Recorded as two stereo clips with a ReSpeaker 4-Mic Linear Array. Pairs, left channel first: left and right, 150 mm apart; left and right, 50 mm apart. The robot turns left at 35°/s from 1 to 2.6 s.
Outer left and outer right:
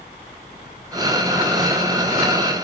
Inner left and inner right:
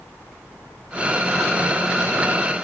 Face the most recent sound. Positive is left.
No sound to turn to.